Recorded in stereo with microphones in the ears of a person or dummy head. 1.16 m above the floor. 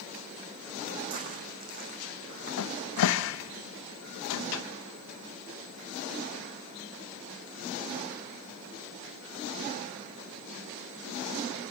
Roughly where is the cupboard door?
Left.